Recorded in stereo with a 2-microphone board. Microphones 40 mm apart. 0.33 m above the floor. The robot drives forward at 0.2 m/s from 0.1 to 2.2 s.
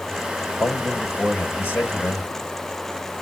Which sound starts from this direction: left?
A man speaking, at 0.6 s.